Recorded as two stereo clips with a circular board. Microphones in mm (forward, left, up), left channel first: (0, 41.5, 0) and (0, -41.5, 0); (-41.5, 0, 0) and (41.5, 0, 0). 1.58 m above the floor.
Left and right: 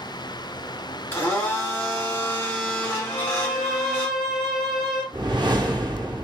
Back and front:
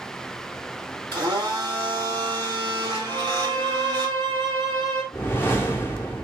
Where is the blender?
25° left, 2.5 m.